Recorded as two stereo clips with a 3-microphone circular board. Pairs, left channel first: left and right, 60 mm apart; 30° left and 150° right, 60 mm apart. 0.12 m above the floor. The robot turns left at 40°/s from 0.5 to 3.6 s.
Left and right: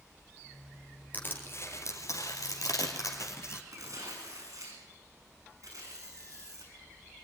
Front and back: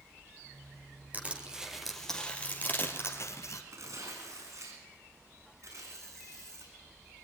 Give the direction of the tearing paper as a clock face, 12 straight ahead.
4 o'clock.